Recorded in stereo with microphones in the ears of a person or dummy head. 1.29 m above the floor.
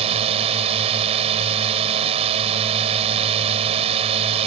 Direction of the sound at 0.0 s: 35° right (ahead or behind).